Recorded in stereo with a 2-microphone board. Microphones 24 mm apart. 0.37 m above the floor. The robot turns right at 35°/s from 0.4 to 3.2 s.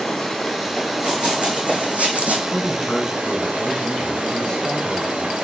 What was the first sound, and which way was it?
Running water, 170° left.